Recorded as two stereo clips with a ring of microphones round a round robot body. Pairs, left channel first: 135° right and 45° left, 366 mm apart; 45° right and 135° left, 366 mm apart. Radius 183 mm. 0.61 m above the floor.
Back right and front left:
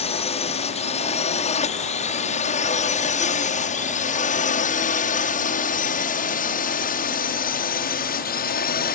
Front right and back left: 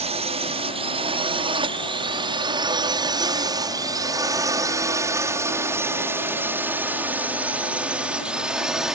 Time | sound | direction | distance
0.0 | a drone | straight behind | ?